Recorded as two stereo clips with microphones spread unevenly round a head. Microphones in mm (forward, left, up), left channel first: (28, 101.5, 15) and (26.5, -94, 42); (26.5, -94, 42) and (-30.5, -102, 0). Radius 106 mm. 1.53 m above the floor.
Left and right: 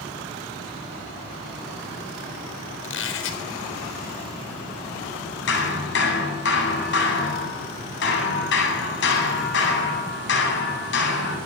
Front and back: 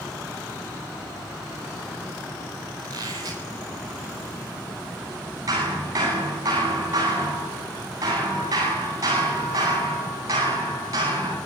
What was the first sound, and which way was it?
A squeak, 125° left.